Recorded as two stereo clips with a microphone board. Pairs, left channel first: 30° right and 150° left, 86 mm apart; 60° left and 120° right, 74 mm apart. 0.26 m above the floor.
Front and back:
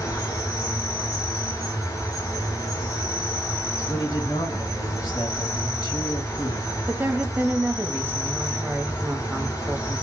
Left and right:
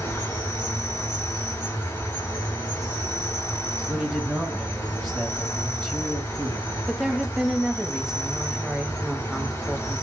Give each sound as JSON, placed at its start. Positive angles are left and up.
{"t": 0.0, "sound": "an insect", "azimuth_deg": 15, "distance_m": 3.0}
{"t": 3.9, "sound": "a man speaking", "azimuth_deg": -15, "distance_m": 1.5}
{"t": 6.9, "sound": "a woman speaking", "azimuth_deg": 165, "distance_m": 1.1}